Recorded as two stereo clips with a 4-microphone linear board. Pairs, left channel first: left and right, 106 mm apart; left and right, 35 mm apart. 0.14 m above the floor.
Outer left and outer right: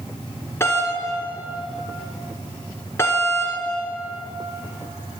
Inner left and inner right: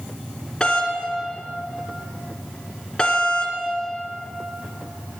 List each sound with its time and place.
0.6 s a doorbell: 25° left (ahead or behind), 2 m